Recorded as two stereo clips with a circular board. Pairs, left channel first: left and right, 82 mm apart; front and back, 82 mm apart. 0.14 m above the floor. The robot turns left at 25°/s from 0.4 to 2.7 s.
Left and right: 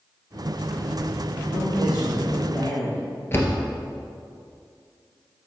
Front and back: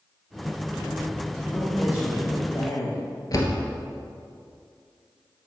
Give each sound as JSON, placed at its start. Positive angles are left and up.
{"t": 1.5, "sound": "a woman speaking", "azimuth_deg": 60, "distance_m": 3.0}
{"t": 3.3, "sound": "a door slam", "azimuth_deg": 35, "distance_m": 1.6}